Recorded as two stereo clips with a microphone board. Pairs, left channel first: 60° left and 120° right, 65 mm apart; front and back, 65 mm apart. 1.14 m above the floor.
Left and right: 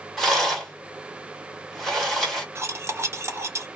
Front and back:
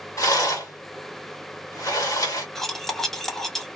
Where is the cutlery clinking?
80° right, 0.7 m.